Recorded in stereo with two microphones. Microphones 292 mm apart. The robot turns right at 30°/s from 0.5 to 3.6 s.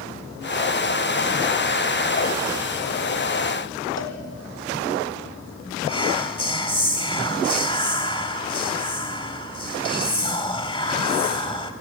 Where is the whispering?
20° left (ahead or behind), 0.9 m.